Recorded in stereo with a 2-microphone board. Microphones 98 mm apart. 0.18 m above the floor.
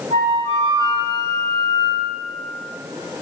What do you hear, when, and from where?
0.1 s a flute: 55° left (ahead or behind), 1.5 m